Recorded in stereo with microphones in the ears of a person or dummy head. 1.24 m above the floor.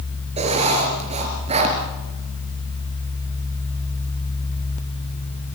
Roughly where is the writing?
Right.